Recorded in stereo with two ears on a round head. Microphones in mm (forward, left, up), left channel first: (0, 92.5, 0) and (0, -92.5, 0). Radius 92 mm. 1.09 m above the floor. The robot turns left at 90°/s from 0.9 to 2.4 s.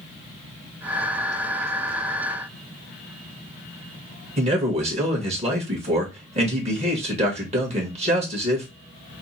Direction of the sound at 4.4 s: 30° right (ahead or behind).